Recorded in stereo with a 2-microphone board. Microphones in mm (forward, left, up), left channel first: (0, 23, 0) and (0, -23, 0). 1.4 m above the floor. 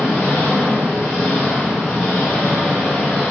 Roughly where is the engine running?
Centre.